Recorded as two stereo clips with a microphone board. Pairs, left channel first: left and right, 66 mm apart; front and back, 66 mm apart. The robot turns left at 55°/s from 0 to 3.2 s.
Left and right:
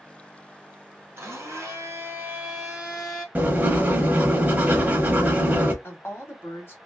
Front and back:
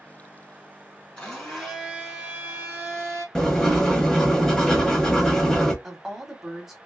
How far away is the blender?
About 1.7 m.